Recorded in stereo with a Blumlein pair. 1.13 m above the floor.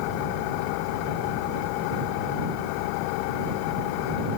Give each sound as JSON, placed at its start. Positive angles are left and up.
{"t": 0.0, "sound": "an engine running", "azimuth_deg": 45}